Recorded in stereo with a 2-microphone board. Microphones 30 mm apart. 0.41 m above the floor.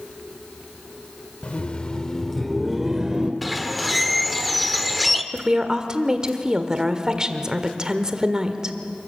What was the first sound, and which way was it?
Laughter, 45° left (ahead or behind).